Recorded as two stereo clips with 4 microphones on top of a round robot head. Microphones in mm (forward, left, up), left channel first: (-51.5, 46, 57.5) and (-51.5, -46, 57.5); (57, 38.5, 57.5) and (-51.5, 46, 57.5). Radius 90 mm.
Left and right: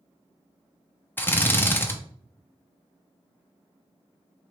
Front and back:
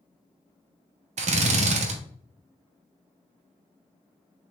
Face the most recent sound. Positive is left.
turn(degrees=160)